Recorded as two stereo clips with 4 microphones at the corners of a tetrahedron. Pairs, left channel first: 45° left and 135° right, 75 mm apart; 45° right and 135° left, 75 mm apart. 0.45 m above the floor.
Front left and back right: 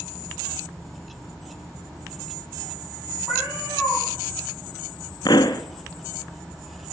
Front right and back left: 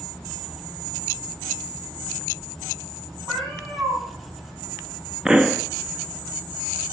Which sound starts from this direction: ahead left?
A pop, at 5.2 s.